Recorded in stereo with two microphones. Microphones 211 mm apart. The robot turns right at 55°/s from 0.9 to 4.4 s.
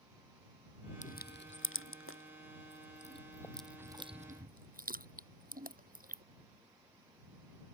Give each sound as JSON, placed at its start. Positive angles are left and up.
{"t": 1.0, "sound": "crushing", "side_deg": 35}